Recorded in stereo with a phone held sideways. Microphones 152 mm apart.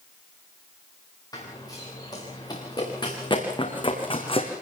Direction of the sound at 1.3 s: 25° left (ahead or behind).